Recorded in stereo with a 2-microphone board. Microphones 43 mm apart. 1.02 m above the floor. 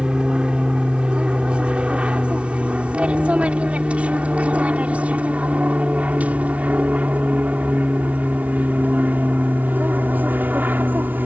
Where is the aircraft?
20° right (ahead or behind); by 11.3 s 45° right (ahead or behind).